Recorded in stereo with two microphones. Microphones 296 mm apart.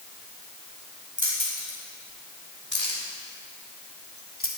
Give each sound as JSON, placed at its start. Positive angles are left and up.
{"t": 1.2, "sound": "keys jangling", "side_deg": 75, "distance_m": 4.5}